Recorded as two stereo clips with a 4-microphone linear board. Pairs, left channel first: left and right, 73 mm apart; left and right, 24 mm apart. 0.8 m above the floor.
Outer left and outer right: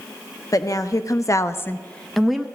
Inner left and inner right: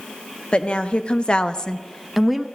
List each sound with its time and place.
0.5 s a woman speaking: 50° left (ahead or behind), 0.9 m; by 2.5 s 10° right (ahead or behind), 0.6 m